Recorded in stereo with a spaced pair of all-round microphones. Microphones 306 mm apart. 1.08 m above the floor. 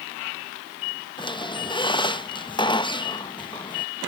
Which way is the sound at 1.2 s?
15° left (ahead or behind).